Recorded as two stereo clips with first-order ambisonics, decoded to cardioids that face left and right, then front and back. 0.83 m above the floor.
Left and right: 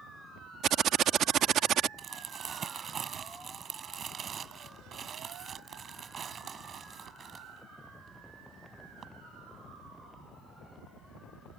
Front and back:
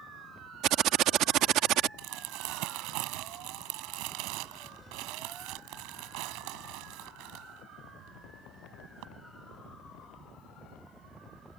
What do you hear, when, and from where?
0.6 s typing on a keyboard: 140° right
2.0 s crumpling: 155° right